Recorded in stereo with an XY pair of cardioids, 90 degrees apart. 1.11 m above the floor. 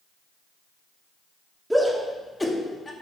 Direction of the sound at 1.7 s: Straight ahead.